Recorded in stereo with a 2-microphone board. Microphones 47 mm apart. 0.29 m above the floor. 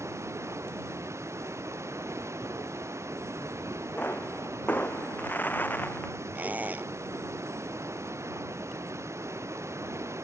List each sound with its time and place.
0.0 s running water: 80° right
4.0 s a pop: 35° left (ahead or behind)
6.3 s a squeak: 40° right (ahead or behind)